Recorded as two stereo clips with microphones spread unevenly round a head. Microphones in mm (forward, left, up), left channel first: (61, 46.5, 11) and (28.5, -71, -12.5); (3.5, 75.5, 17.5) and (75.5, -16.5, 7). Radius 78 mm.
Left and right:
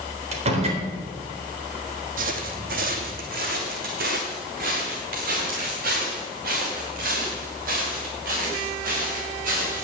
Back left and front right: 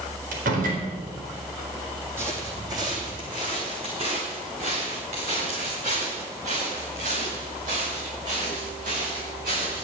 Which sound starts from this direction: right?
A door slam, at 0.3 s.